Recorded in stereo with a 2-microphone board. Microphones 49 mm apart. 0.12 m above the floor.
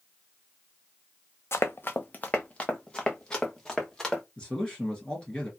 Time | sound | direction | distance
1.5 | running footsteps | 60° left (ahead or behind) | 0.6 m
4.4 | a man speaking | 20° left (ahead or behind) | 1.6 m